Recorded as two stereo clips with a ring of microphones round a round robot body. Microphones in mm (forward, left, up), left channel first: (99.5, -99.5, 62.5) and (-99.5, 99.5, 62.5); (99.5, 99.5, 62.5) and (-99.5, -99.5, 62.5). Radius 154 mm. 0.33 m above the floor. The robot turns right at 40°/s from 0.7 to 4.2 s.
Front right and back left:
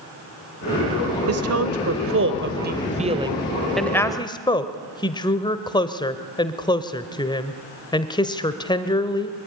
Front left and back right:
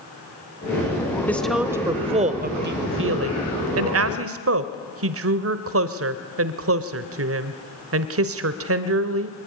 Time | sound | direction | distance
1.3 | a woman speaking | 125° left | 1.4 m